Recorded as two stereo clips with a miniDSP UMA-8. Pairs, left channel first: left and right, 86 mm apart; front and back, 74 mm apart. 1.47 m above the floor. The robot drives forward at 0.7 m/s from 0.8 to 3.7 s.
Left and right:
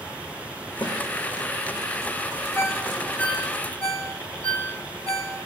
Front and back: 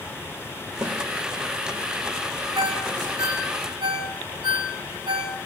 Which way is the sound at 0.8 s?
120° left.